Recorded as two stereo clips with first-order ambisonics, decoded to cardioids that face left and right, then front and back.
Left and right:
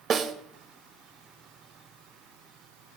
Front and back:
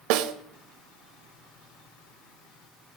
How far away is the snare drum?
About 0.5 m.